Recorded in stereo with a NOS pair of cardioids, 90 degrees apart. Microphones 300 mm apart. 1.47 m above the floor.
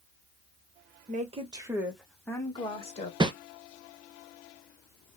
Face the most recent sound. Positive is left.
turn(degrees=-15)